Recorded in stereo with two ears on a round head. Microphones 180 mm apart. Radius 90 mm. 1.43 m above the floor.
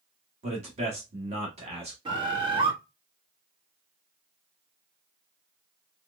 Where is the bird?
25° right (ahead or behind), 1.5 m.